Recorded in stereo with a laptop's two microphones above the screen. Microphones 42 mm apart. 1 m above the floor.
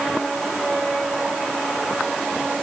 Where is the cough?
No cough in this recording.